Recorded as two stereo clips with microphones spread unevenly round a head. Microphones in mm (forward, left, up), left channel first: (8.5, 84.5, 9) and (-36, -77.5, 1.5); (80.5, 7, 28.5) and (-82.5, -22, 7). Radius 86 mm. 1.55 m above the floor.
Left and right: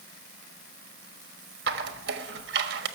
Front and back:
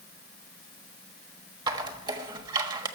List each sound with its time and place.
1.7 s a squeak: 105° right, 1.3 m